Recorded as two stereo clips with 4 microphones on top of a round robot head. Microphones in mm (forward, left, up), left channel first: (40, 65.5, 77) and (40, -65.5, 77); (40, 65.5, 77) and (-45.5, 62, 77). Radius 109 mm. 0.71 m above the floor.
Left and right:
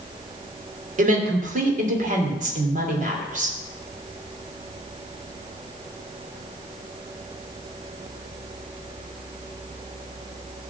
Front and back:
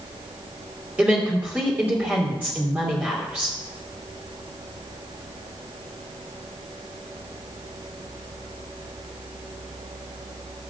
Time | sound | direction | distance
1.0 | a woman speaking | 105° right | 3 m